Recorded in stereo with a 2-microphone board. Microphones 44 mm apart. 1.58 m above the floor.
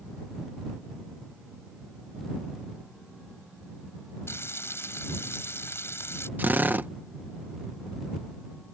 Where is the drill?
45° right (ahead or behind).